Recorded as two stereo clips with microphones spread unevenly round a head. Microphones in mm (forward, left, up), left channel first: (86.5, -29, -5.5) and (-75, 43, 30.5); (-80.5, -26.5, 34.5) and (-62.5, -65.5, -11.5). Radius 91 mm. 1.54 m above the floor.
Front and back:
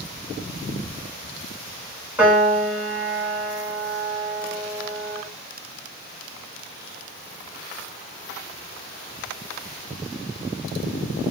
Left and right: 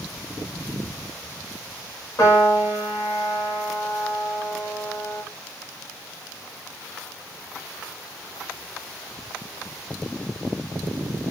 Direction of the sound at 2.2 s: 75° left.